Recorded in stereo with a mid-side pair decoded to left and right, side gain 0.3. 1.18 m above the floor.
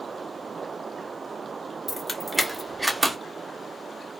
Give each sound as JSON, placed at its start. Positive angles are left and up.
{"t": 1.9, "sound": "keys jangling", "azimuth_deg": 20, "distance_m": 1.1}